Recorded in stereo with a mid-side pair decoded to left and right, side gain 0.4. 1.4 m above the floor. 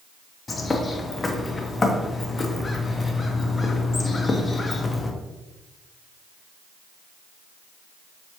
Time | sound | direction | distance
0.5 | a bird | 30° left | 0.8 m